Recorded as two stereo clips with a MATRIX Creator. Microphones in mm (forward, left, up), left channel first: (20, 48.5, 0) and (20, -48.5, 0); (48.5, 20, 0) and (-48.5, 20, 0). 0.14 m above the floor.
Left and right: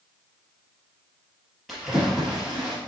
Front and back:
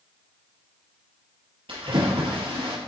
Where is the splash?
Straight behind, 2.5 m.